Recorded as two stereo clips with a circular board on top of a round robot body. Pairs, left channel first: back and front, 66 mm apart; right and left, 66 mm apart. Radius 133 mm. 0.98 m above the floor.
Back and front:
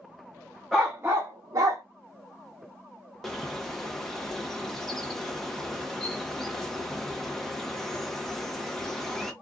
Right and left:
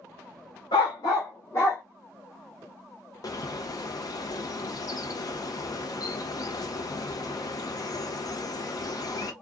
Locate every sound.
0.7 s a dog barking: 90° right, 0.5 m; by 1.8 s 40° right, 1.1 m
3.2 s a bird: 95° right, 0.9 m